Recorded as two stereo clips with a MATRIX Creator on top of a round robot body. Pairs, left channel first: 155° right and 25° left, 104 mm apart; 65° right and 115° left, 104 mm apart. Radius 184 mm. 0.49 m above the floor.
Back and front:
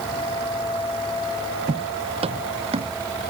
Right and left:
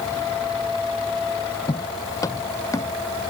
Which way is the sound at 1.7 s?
10° right.